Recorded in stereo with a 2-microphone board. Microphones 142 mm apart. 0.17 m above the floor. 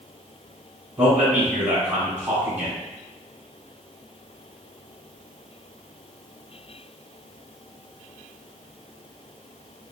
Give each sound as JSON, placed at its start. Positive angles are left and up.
{"t": 1.0, "sound": "a man speaking", "side_deg": -10, "distance_m": 1.7}